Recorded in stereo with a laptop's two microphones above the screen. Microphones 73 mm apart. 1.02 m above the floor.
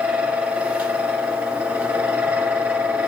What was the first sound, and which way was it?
A fan, 20° right (ahead or behind).